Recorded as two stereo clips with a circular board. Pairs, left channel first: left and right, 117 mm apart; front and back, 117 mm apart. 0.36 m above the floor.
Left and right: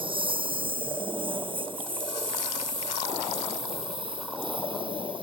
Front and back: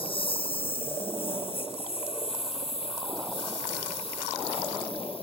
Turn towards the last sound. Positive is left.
turn(degrees=-40)